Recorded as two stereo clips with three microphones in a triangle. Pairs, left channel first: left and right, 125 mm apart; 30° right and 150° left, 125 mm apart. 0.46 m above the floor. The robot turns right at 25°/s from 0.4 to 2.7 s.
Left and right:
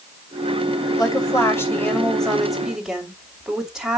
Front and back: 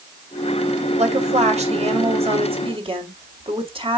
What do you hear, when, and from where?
1.0 s a woman speaking: 145° left, 2.5 m; by 4.0 s 175° right, 2.5 m